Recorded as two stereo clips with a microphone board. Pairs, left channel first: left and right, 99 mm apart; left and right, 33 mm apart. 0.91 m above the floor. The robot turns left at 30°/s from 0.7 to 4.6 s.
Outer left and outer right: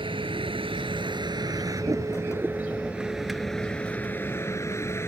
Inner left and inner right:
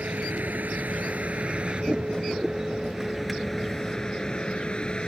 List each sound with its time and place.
0.0 s a vehicle: 60° right (ahead or behind); by 5.1 s 25° left (ahead or behind)